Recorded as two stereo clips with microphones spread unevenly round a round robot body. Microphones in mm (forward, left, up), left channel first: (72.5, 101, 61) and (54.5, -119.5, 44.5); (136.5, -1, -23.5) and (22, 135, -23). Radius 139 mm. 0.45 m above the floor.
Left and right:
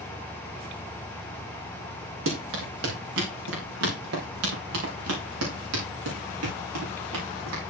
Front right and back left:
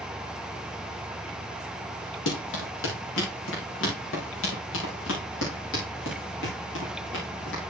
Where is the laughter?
No laughter in this recording.